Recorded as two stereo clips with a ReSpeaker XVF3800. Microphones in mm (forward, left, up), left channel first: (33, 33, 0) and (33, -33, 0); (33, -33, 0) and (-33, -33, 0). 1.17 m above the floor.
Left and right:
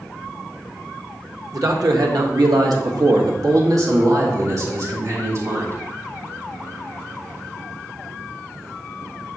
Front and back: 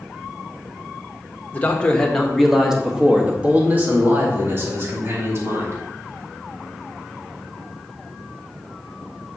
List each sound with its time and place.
1.5 s a man speaking: 65° right, 1.4 m; by 5.8 s 135° right, 3 m